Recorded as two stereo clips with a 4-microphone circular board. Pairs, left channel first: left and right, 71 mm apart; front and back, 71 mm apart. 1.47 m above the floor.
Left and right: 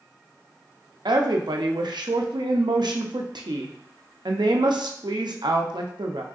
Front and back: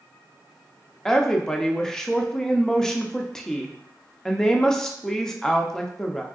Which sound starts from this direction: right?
A woman speaking, at 1.1 s.